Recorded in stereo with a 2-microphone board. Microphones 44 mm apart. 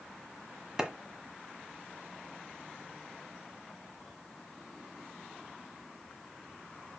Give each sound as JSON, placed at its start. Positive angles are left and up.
{"t": 0.8, "sound": "a clap", "side_deg": -15, "distance_m": 1.4}